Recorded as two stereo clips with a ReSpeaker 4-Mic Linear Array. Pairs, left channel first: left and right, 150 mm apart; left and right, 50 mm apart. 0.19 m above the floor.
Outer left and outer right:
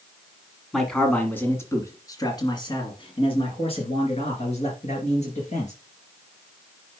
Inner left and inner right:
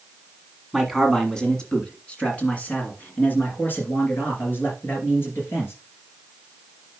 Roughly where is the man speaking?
Centre.